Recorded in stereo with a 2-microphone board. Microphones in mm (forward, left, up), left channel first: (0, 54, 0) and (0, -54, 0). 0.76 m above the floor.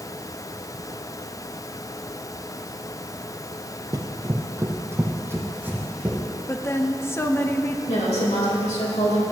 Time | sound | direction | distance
3.9 | running footsteps | 35° right (ahead or behind) | 0.9 m
6.5 | a woman speaking | 20° left (ahead or behind) | 0.7 m
7.9 | a woman speaking | 75° left (ahead or behind) | 3.5 m